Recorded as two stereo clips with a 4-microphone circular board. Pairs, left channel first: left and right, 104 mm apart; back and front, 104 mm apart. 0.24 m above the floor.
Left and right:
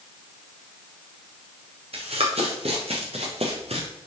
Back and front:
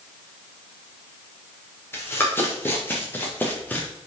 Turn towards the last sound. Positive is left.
turn(degrees=-105)